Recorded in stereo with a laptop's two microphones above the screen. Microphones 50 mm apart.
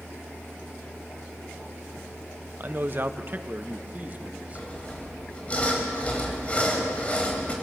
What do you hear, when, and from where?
2.6 s a man speaking: 45° right (ahead or behind), 0.7 m; by 4.7 s 35° right (ahead or behind), 1.6 m
4.5 s sawing: 30° left (ahead or behind), 4 m